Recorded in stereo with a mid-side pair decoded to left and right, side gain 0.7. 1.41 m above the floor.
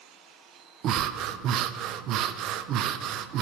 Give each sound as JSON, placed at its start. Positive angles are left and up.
{"t": 0.8, "sound": "breathing", "azimuth_deg": -55, "distance_m": 0.7}